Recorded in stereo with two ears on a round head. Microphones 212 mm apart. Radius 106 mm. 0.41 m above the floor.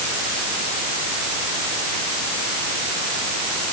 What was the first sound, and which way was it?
Only background noise.